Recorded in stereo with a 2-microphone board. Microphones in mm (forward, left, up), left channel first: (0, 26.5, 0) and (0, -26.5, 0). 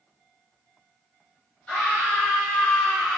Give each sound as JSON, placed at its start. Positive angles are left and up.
{"t": 1.7, "sound": "a scream", "side_deg": 25, "distance_m": 1.3}